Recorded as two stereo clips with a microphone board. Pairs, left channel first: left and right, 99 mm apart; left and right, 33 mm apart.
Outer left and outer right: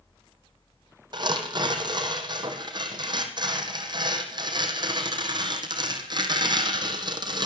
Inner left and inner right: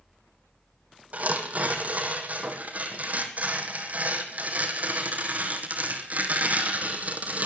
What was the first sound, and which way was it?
Tearing paper, 50° right (ahead or behind).